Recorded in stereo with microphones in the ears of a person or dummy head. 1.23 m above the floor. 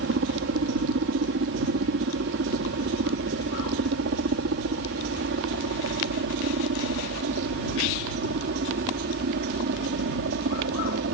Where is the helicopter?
65° right (ahead or behind); by 11.2 s 60° right (ahead or behind).